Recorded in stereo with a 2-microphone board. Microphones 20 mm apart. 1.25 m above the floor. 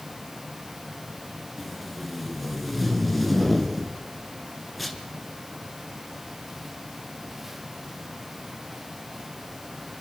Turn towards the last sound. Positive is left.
turn(degrees=5)  # may be behind; listen again after turning